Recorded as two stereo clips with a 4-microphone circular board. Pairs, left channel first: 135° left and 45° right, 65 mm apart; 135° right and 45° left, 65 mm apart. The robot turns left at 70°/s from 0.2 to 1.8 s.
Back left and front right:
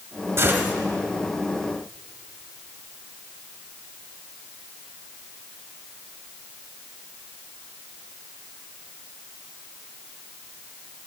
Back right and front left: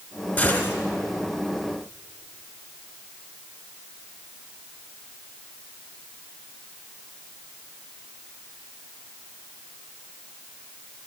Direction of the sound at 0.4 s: 80° right.